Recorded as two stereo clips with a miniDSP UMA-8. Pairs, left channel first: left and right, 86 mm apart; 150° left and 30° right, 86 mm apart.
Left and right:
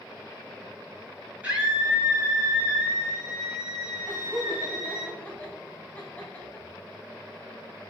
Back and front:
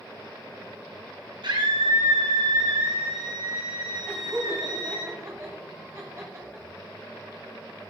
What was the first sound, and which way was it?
A scream, 15° right.